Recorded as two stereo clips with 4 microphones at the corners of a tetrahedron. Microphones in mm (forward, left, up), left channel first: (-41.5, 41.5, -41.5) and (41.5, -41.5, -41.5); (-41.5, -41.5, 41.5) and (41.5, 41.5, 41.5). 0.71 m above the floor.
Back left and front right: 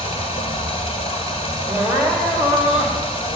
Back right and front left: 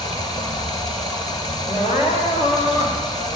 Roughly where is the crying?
Behind right.